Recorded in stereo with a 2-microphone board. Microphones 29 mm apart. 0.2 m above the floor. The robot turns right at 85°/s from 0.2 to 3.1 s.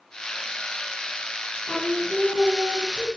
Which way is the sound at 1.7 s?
125° left.